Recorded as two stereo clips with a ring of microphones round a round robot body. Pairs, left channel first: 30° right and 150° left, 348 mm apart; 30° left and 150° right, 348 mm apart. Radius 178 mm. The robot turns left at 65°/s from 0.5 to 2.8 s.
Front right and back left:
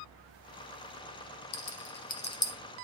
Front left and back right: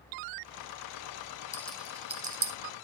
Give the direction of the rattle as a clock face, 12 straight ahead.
2 o'clock.